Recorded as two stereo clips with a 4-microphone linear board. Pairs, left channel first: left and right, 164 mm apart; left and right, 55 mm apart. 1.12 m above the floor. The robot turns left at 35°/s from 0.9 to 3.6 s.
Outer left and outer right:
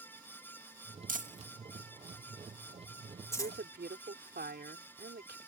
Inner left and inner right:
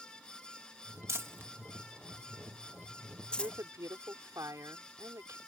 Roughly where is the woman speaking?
Right.